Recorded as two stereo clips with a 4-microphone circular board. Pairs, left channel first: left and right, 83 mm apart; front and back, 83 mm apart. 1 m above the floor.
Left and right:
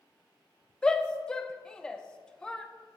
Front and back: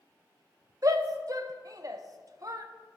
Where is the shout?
165° left, 0.7 m.